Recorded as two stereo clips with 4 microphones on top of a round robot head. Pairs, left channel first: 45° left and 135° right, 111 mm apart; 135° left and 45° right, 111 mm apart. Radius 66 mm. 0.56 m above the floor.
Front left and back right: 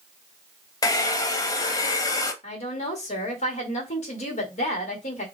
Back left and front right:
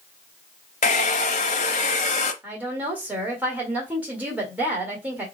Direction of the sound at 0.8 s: 105° left.